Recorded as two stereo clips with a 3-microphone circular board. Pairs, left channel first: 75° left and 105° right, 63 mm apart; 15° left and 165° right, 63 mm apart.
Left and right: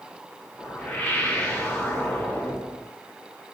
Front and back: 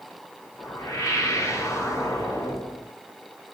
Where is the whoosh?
10° left, 0.9 m.